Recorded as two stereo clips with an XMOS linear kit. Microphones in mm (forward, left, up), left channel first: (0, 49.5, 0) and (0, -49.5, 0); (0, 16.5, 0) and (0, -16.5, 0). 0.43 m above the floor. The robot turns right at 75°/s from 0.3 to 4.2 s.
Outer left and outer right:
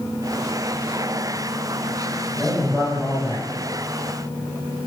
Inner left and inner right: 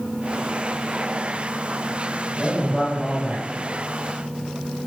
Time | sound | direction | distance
2.4 | a man speaking | 170° left | 2.5 m